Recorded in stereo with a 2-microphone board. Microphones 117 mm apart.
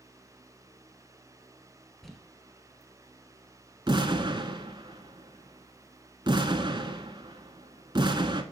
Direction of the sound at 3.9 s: 40° right (ahead or behind).